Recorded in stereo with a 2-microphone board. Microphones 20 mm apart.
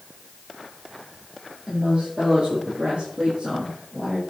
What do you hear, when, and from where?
1.7 s a woman speaking: 45° right (ahead or behind), 6.5 m; by 4.2 s 35° right (ahead or behind), 5.5 m